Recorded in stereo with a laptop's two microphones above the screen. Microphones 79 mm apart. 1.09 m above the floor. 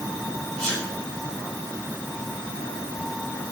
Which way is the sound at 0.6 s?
40° right (ahead or behind).